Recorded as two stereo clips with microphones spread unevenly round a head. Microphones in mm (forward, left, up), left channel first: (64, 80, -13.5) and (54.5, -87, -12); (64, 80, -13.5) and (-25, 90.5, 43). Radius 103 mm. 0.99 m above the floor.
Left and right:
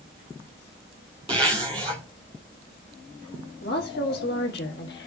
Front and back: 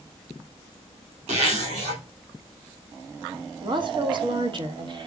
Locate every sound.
1.3 s a zipper: 160° right, 2 m
3.6 s a woman speaking: 130° left, 1.8 m